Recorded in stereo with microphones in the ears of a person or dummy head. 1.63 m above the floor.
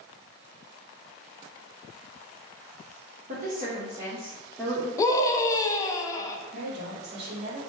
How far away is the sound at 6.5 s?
About 1.8 m.